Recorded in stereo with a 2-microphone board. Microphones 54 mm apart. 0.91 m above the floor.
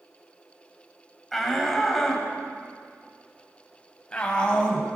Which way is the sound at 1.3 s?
5° left (ahead or behind).